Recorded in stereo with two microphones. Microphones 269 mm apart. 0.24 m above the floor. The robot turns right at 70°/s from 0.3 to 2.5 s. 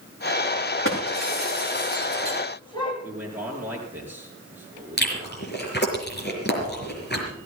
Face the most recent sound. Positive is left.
turn(degrees=40)  # may be behind; listen again after turning